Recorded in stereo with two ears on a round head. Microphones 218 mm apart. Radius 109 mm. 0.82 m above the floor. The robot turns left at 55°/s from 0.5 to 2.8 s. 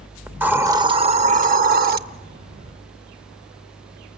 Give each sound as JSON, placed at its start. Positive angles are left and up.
{"t": 0.3, "sound": "a hiss", "azimuth_deg": -10, "distance_m": 0.5}